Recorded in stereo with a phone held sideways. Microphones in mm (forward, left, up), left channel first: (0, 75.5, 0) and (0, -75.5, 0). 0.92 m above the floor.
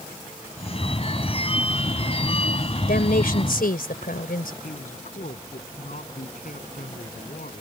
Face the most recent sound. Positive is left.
turn(degrees=65)  # may be behind; listen again after turning